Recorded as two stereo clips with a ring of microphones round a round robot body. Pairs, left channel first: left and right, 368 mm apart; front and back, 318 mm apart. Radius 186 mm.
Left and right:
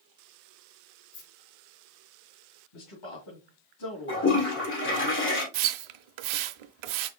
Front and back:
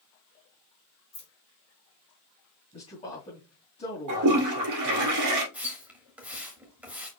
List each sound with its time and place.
1.1 s keys jangling: 70° left, 2 m
2.7 s a man speaking: 70° left, 2.5 m
4.1 s a toilet flushing: 150° left, 2 m
5.5 s a splash: 95° right, 0.7 m